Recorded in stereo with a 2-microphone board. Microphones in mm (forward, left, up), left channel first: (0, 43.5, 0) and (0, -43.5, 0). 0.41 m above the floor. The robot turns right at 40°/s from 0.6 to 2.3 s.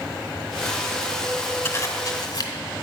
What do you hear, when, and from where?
1.6 s a zipper: 30° left (ahead or behind), 1.0 m; by 2.5 s 55° left (ahead or behind), 1.0 m